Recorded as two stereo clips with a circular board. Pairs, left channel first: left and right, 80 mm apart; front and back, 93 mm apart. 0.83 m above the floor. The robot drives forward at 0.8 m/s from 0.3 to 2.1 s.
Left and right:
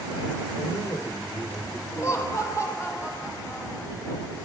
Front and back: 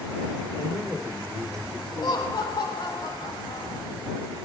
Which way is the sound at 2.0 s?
40° left.